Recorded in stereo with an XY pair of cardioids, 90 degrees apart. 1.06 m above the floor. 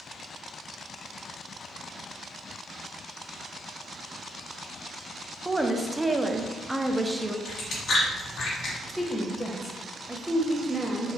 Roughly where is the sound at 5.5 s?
Ahead.